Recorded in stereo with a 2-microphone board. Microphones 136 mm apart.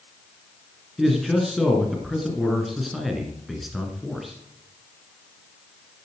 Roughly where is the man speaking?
Centre.